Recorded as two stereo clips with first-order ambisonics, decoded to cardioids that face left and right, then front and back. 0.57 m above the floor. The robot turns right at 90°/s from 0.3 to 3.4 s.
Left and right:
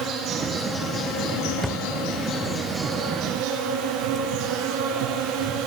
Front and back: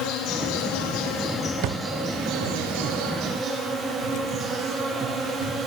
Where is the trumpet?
No trumpet in this recording.